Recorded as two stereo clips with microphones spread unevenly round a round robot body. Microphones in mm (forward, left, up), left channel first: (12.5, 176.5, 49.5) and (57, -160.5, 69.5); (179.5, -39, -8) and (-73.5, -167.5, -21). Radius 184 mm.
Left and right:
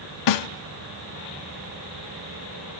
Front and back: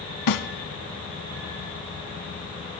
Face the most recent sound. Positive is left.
turn(degrees=65)